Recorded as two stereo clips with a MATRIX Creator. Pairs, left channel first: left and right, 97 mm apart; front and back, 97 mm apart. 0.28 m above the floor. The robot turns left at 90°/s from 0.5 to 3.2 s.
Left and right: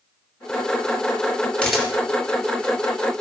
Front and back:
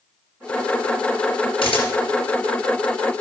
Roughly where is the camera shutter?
Ahead.